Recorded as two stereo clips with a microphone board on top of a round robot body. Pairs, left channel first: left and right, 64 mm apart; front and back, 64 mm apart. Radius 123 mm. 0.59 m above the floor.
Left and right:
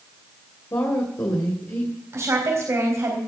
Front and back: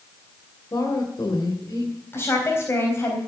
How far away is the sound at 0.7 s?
About 2.5 m.